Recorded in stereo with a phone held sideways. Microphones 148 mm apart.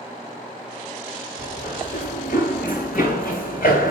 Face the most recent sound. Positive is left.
turn(degrees=75)  # may be behind; listen again after turning